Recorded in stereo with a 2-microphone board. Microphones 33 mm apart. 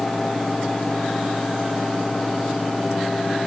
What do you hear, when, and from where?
Only background noise.